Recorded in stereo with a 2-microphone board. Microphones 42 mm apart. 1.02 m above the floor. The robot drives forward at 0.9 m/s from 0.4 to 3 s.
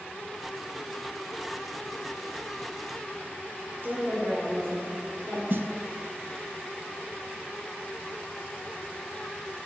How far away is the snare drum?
About 0.6 m.